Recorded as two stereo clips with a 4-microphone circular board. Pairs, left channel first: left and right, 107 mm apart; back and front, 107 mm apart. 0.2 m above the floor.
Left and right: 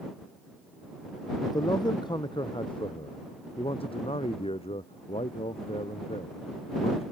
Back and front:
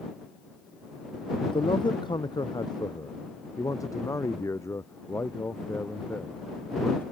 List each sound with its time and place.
1.4 s a man speaking: 145° left; by 7.0 s 105° left